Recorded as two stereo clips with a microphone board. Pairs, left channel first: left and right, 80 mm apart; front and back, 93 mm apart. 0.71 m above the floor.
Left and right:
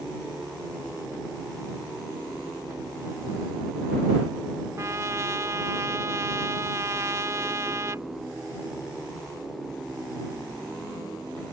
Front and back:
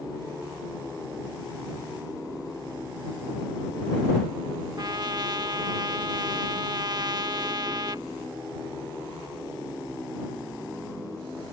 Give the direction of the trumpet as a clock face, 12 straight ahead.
5 o'clock.